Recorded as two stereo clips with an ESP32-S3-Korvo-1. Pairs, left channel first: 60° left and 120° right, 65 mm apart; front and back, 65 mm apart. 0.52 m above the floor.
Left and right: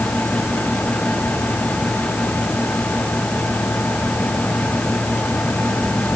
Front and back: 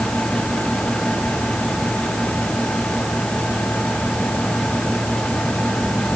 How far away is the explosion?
No explosion in this recording.